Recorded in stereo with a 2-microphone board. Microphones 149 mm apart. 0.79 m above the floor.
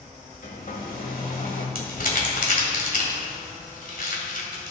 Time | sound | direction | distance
0.4 | a hair dryer | 70° left (ahead or behind) | 1.6 m
1.8 | crumpling | 75° left (ahead or behind) | 1.9 m